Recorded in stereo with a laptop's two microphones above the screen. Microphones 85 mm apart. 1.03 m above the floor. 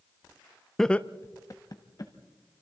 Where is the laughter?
5° left (ahead or behind), 0.7 m; by 2.1 s 50° left (ahead or behind), 1.4 m.